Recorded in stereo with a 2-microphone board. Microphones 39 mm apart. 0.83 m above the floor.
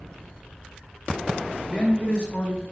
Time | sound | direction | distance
1.7 | a man speaking | 35° left (ahead or behind) | 0.9 m